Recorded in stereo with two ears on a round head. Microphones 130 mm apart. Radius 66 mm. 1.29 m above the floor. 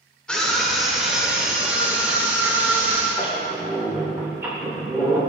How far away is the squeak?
About 3 m.